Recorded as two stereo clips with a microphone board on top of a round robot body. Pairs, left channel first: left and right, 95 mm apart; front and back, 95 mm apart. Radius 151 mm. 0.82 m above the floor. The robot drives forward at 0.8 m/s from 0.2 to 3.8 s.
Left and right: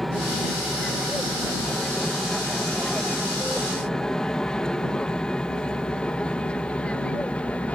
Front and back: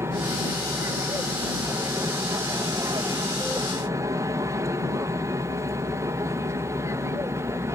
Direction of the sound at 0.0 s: 175° left.